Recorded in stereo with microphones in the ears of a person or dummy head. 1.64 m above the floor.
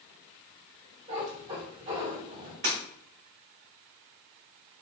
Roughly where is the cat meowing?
Right.